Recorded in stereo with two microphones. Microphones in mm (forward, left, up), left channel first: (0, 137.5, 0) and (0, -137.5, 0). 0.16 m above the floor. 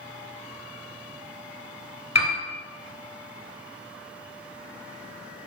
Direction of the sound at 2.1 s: 65° left (ahead or behind).